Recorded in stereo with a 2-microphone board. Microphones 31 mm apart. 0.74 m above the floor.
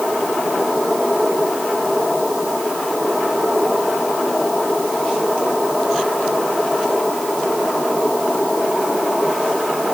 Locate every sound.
Only background noise.